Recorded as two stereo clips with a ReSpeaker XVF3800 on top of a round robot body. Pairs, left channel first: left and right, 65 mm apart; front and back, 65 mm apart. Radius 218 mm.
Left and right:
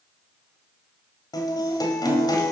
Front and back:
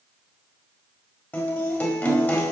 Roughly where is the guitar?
Ahead left.